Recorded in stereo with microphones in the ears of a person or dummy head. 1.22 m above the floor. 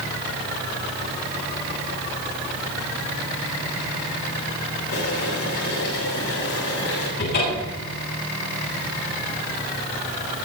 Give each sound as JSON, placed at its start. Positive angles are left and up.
{"t": 4.9, "sound": "boiling", "side_deg": 60, "distance_m": 8.0}
{"t": 7.2, "sound": "a cupboard door", "side_deg": 50, "distance_m": 8.0}